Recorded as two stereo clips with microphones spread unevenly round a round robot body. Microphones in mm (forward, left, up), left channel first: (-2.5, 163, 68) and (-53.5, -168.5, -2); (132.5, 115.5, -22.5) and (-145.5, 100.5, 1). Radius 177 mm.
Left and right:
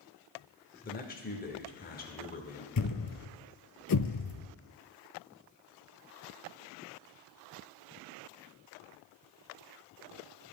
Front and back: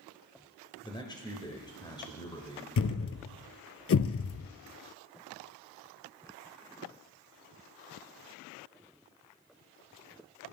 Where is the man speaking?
30° left, 0.8 m.